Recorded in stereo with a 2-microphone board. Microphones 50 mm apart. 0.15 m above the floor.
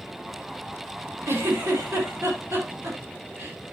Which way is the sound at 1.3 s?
55° right (ahead or behind).